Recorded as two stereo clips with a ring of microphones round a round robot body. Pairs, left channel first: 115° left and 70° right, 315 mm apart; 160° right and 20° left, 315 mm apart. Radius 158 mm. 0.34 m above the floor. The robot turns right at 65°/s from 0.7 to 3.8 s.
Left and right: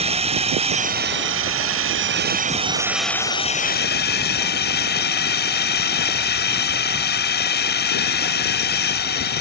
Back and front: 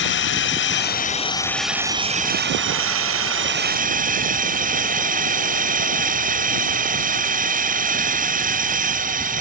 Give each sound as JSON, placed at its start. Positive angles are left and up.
{"t": 0.0, "sound": "a drone", "azimuth_deg": -130}